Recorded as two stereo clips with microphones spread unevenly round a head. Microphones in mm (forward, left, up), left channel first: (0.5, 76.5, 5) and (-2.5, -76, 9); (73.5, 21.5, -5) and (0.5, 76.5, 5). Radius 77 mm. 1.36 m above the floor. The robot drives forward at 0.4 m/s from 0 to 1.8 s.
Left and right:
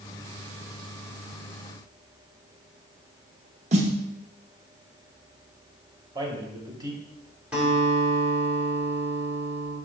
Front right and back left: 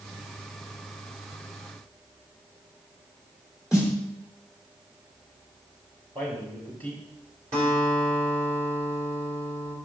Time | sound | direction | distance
3.7 | a snare drum | 135° right | 0.9 m
6.2 | a man speaking | 155° right | 1.5 m
7.5 | a guitar | 170° right | 2.5 m